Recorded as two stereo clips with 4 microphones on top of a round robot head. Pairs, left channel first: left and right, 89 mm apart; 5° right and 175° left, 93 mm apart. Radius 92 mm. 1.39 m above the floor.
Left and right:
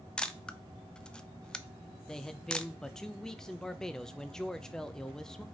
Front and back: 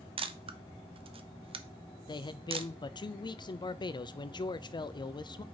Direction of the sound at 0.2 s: 170° left.